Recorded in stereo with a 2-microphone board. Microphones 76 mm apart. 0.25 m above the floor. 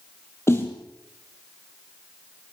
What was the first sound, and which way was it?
A snare drum, 35° left (ahead or behind).